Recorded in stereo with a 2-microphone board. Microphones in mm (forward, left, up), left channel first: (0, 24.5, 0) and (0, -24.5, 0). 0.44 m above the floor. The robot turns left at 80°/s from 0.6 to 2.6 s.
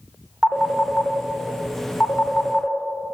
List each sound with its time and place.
0.4 s a phone ringing: 5° left (ahead or behind), 0.6 m; by 2.8 s 10° left (ahead or behind), 0.6 m